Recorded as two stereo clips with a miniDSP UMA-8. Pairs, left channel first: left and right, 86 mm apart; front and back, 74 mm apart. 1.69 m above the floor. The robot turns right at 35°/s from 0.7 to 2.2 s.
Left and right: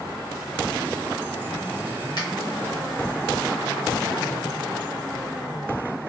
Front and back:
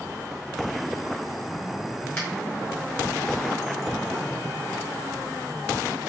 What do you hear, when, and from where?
2.2 s a finger snap: 60° left, 1.7 m